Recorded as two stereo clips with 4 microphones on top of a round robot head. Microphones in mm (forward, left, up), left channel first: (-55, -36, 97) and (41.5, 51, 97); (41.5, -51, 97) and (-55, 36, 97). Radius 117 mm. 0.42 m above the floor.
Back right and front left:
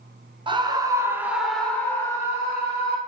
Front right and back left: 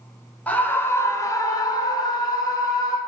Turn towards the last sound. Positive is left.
turn(degrees=-95)